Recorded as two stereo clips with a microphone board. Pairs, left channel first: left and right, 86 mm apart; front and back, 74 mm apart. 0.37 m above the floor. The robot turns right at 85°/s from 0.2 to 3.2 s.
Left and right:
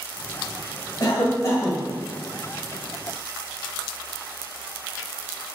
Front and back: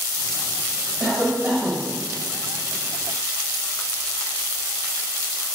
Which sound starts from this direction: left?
A cough, at 1.0 s.